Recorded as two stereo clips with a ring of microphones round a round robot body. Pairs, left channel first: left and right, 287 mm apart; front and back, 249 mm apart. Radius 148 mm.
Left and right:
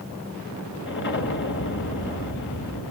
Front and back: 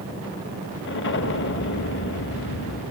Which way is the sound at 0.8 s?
40° left.